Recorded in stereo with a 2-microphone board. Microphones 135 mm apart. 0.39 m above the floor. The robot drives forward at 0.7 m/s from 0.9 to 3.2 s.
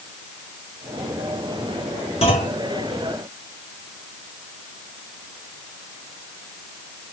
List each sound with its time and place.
2.2 s a clunk: 50° left (ahead or behind), 1.7 m; by 2.6 s 55° left (ahead or behind), 1.6 m